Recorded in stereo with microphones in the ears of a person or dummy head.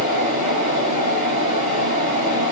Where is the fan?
50° left (ahead or behind), 1.5 m.